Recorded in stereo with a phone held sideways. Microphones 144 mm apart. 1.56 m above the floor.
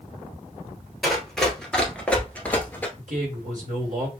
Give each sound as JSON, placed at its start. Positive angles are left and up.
{"t": 1.0, "sound": "running footsteps", "side_deg": 0, "distance_m": 1.7}
{"t": 3.0, "sound": "a man speaking", "side_deg": -60, "distance_m": 2.5}